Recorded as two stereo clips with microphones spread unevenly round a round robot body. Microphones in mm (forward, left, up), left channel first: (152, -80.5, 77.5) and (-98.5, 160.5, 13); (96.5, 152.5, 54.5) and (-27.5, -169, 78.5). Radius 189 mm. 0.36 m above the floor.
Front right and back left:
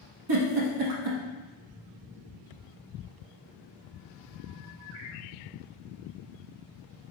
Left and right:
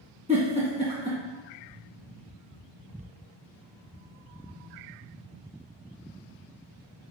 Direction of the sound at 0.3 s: 175° left.